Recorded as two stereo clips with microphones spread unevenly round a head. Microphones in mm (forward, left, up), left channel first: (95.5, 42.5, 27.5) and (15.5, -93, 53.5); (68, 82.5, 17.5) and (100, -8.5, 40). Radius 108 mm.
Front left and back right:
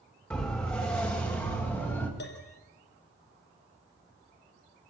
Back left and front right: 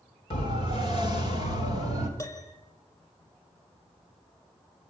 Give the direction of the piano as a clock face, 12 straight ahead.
10 o'clock.